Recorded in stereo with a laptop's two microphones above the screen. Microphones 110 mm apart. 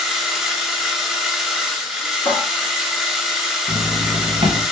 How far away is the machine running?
About 0.7 m.